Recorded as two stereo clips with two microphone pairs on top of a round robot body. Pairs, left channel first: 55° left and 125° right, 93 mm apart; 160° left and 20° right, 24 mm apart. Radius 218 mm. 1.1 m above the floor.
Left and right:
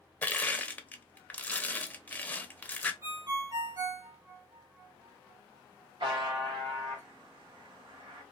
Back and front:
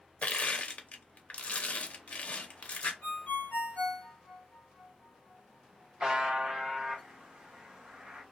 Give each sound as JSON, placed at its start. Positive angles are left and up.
{"t": 0.2, "sound": "crushing", "azimuth_deg": 130, "distance_m": 0.6}
{"t": 3.0, "sound": "a ringtone", "azimuth_deg": -165, "distance_m": 1.2}
{"t": 6.0, "sound": "a buzzer", "azimuth_deg": -90, "distance_m": 0.9}